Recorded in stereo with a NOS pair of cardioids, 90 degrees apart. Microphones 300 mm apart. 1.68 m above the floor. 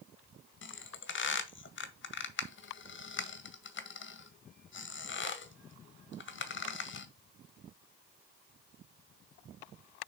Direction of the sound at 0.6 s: 40° left.